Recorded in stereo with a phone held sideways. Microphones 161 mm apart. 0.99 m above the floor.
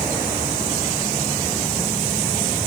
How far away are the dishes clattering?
No dishes clattering in this recording.